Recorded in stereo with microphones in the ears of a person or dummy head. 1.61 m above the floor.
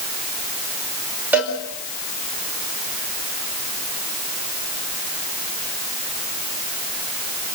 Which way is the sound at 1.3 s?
10° right (ahead or behind).